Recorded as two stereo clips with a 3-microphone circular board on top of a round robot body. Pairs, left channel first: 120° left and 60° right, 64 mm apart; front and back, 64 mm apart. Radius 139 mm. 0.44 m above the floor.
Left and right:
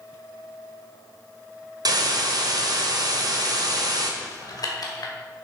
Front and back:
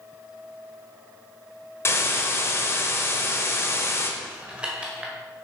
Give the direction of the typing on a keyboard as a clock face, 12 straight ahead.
8 o'clock.